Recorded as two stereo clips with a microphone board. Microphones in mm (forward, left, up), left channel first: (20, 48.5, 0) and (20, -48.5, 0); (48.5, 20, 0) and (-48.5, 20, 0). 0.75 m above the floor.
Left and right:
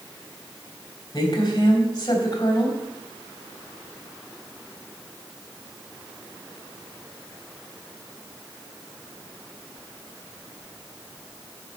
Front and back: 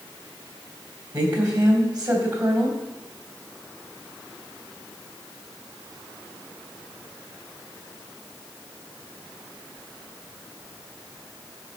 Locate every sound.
1.1 s a woman speaking: 135° left, 3.5 m